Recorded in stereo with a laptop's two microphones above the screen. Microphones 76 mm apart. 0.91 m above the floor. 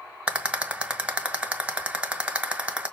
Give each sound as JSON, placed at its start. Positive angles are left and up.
{"t": 0.3, "sound": "a rattle", "side_deg": -15, "distance_m": 1.3}